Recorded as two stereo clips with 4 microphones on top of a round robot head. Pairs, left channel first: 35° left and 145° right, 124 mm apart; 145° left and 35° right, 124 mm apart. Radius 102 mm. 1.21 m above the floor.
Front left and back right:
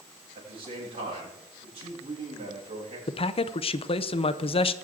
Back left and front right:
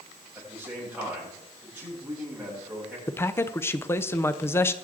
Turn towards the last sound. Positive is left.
turn(degrees=75)